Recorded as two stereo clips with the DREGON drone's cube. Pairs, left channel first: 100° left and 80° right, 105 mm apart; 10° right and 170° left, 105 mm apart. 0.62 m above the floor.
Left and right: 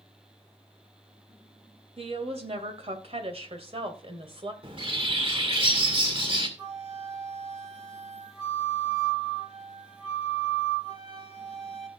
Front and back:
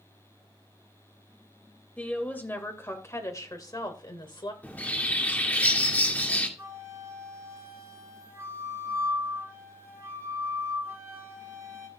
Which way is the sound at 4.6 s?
85° right.